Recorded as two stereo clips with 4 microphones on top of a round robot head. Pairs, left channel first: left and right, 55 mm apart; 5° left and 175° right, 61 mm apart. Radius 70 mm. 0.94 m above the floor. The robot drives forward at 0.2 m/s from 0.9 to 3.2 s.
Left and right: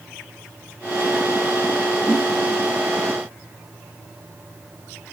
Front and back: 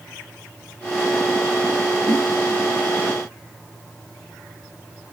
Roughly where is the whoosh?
Behind.